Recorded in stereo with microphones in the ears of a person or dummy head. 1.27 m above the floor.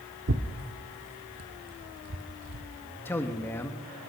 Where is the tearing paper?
65° right (ahead or behind), 1.4 m.